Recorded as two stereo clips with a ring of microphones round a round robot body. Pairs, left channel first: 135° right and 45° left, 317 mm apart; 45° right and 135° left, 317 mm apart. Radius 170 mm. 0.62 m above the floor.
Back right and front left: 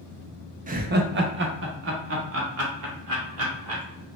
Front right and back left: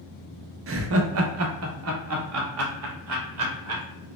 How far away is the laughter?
About 0.7 m.